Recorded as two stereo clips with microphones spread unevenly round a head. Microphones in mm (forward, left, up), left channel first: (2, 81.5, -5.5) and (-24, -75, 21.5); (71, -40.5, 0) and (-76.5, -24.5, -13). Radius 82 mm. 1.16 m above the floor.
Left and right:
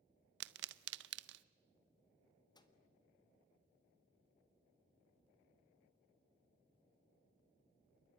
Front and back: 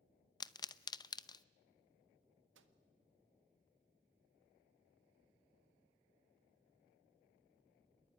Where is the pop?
70° right, 0.7 m.